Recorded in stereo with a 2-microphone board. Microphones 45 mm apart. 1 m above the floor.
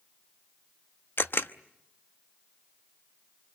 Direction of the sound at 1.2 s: 60° left (ahead or behind).